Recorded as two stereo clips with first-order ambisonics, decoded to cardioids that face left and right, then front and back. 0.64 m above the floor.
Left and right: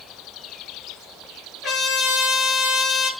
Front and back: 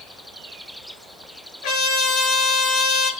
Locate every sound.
1.6 s a trumpet: 15° left, 8 m